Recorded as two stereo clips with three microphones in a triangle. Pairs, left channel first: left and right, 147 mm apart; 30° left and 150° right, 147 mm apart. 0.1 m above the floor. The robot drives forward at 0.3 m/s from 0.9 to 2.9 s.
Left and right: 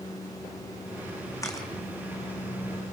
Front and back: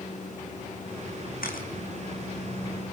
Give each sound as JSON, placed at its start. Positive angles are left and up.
{"t": 1.4, "sound": "a camera shutter", "azimuth_deg": 25, "distance_m": 2.5}